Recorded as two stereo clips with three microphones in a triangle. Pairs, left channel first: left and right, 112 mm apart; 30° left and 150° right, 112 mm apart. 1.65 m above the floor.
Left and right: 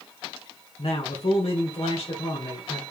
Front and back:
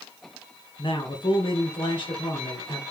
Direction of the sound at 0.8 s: 70° left.